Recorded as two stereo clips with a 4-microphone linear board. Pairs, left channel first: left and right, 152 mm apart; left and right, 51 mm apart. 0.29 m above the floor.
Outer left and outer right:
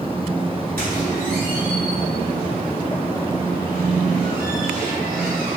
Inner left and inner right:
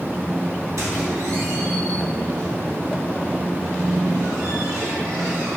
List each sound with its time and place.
0.8 s a squeak: 80° right, 1.0 m